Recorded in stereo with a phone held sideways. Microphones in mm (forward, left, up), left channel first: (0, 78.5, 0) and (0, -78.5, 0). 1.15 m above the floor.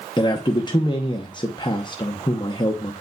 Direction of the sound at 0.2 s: 30° left (ahead or behind).